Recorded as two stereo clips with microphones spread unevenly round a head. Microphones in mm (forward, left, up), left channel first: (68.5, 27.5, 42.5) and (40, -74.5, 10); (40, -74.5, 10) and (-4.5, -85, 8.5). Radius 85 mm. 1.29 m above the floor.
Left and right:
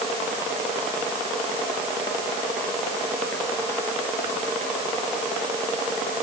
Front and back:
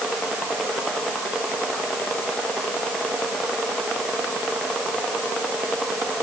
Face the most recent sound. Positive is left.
No sound to turn to.